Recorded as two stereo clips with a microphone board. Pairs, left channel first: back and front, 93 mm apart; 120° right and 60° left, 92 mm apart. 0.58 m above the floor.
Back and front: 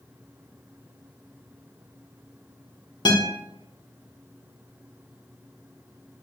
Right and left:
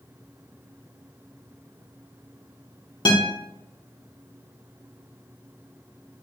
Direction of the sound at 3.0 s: 145° right.